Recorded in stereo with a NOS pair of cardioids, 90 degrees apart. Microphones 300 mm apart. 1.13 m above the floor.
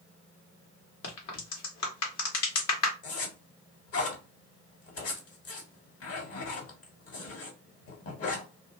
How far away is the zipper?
About 1.5 m.